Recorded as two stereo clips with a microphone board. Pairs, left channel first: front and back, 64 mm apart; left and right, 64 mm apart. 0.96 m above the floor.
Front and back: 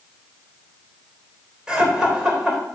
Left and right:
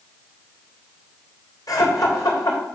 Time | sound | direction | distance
1.7 | laughter | 100° left | 3.5 m